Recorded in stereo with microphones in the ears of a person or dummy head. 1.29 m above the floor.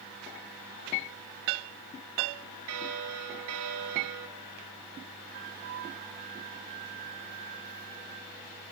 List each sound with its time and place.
2.7 s a bell: 75° right (ahead or behind), 1.6 m
5.3 s a flute: 50° right (ahead or behind), 2 m